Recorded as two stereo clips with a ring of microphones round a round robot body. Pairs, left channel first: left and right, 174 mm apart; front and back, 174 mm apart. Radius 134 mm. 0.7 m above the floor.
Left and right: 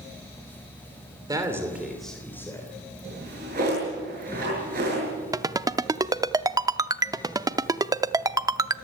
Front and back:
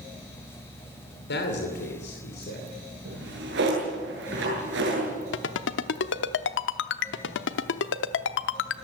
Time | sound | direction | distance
1.3 | a man speaking | 20° right | 3 m
3.0 | a drawer | 145° right | 8.5 m
5.3 | a ringtone | 20° right | 0.7 m